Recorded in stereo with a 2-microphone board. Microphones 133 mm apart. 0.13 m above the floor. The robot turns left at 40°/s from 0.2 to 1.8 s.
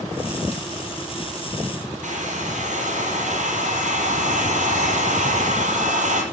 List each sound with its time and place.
2.0 s a hair dryer: 65° right (ahead or behind), 4 m